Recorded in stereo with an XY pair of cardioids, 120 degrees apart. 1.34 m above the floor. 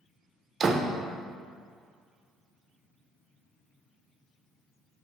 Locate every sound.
0.6 s a door slam: 40° right, 0.6 m